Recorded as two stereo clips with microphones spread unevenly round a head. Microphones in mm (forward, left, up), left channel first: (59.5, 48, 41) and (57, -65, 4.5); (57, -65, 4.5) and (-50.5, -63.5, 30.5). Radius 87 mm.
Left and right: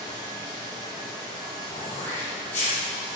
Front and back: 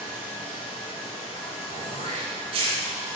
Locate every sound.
0.0 s running water: 35° right, 3 m
1.7 s throat clearing: 155° left, 3.5 m